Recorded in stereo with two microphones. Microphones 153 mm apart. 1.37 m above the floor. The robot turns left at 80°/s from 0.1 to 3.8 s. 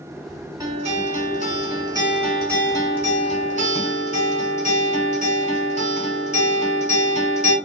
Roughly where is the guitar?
Ahead right.